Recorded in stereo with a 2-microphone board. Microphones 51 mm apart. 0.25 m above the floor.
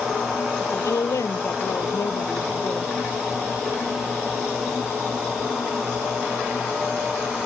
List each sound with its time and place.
0.6 s a woman speaking: 75° left (ahead or behind)